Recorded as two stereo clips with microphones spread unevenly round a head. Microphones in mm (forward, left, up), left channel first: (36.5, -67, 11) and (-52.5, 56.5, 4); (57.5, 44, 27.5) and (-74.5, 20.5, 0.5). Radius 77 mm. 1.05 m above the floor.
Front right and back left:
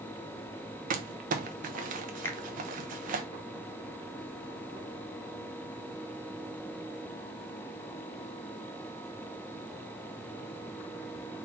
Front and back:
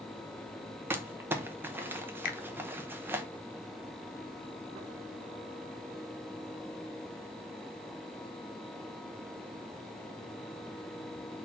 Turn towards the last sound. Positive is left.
turn(degrees=20)